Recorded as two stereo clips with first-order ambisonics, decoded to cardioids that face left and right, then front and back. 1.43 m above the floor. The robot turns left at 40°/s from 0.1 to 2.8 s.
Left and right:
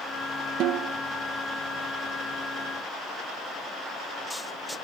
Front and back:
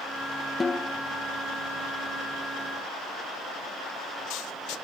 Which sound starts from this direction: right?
A snare drum, at 0.6 s.